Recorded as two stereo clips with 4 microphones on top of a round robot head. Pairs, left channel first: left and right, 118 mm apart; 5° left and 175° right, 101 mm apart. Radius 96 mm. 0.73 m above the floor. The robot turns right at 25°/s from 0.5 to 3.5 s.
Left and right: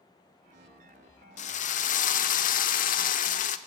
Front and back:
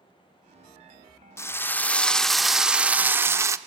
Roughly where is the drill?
Ahead left.